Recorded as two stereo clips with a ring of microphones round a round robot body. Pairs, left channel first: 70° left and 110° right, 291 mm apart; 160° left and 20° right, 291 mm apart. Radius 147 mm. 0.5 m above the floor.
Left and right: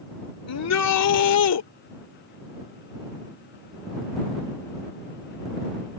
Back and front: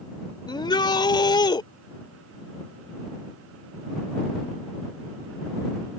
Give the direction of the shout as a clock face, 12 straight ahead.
9 o'clock.